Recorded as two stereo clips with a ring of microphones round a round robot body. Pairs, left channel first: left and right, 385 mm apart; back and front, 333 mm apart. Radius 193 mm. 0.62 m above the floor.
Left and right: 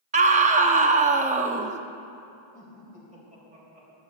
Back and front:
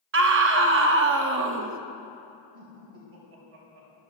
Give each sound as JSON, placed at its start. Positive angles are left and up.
{"t": 0.1, "sound": "a scream", "azimuth_deg": -30, "distance_m": 0.7}
{"t": 2.5, "sound": "laughter", "azimuth_deg": -20, "distance_m": 3.5}